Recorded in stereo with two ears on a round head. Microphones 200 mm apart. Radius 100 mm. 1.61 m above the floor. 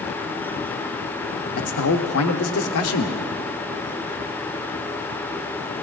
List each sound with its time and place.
1.6 s a man speaking: 65° left (ahead or behind), 0.9 m